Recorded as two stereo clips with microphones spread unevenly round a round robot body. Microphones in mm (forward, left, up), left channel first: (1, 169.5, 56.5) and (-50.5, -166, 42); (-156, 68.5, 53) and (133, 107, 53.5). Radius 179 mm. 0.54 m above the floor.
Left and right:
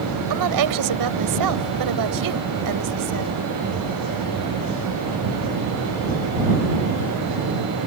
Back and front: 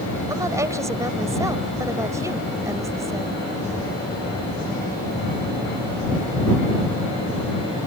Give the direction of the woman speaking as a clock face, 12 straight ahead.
2 o'clock.